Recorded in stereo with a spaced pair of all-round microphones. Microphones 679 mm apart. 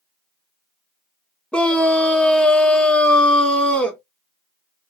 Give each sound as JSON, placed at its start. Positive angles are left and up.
{"t": 1.5, "sound": "a scream", "side_deg": 0, "distance_m": 1.0}